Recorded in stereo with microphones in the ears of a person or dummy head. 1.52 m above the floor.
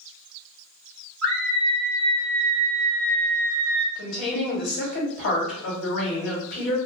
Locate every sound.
1.2 s a scream: 5° left (ahead or behind), 1.1 m
4.0 s a woman speaking: 75° left (ahead or behind), 1.6 m